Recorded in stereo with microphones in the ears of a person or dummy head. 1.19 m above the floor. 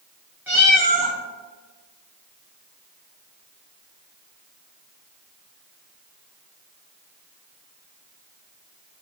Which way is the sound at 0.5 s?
5° right (ahead or behind).